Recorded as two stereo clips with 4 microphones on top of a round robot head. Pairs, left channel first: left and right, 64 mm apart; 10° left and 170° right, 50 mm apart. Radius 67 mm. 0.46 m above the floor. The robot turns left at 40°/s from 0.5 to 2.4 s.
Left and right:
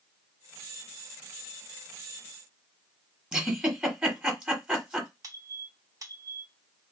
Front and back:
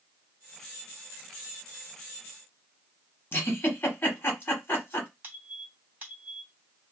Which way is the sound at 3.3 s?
20° right.